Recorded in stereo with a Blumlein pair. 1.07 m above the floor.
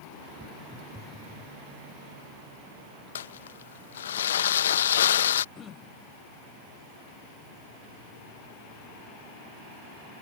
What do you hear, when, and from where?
0.4 s footsteps: straight ahead
3.1 s crumpling: 65° left
5.5 s throat clearing: 20° left